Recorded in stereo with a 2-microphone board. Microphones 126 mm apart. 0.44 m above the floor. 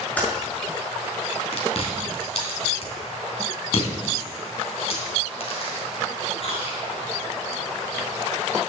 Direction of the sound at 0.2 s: 10° left (ahead or behind).